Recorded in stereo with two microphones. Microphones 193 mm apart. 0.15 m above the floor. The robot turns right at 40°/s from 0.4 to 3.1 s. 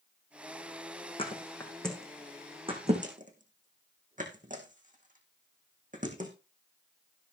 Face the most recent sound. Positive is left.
turn(degrees=-45)  # may be behind; listen again after turning